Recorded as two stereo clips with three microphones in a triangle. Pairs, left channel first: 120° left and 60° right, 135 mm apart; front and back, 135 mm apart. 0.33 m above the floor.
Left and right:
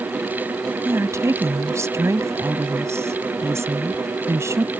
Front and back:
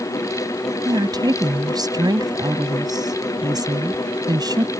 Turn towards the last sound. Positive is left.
turn(degrees=-125)